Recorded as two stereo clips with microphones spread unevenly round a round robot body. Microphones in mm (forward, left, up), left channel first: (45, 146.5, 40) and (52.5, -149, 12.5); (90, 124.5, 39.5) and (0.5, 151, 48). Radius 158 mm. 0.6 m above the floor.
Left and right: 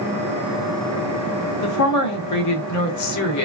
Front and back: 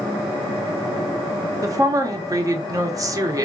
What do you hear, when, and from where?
1.6 s a woman speaking: 110° left, 1.0 m